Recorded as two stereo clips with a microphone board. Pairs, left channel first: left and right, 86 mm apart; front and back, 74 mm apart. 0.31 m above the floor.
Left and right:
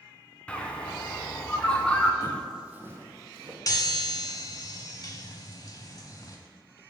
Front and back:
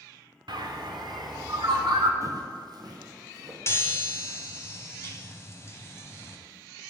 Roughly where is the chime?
Ahead left.